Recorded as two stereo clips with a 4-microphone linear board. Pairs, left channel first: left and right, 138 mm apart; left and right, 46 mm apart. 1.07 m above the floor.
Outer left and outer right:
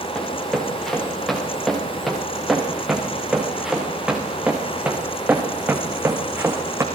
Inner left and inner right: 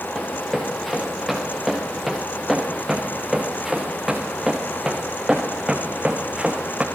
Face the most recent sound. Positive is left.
turn(degrees=-20)  # may be behind; listen again after turning